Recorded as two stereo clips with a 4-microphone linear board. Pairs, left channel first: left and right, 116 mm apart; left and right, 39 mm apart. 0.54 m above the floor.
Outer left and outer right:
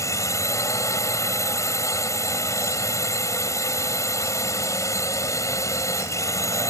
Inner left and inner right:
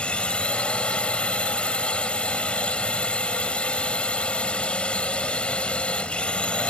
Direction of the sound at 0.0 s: 25° left (ahead or behind).